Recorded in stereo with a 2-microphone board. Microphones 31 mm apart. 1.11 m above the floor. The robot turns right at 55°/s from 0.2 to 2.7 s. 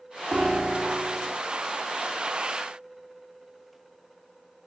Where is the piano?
20° right, 1.7 m; by 1.4 s 40° left, 1.7 m.